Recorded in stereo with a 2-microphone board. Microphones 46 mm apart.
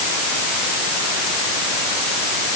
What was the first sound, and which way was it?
Only background noise.